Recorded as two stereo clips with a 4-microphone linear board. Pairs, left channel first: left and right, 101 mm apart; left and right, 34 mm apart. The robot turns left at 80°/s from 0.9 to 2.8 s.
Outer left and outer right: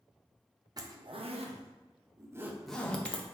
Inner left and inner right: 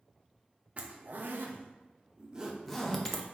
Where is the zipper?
40° right (ahead or behind), 0.6 m; by 3.2 s 10° left (ahead or behind), 0.6 m.